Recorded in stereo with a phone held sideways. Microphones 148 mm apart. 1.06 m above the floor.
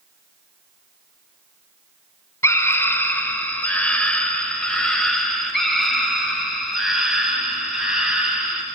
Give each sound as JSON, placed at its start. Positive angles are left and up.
{"t": 2.4, "sound": "a scream", "side_deg": 20, "distance_m": 4.0}